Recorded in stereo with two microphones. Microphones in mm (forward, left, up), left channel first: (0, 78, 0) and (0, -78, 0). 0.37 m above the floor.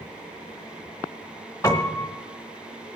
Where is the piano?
20° left (ahead or behind), 1.5 m.